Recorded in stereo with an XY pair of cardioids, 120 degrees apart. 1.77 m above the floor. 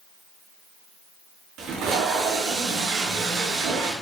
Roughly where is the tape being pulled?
Right.